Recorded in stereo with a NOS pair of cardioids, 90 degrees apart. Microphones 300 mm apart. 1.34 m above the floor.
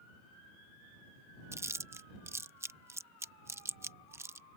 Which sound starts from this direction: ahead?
Chewing, at 1.5 s.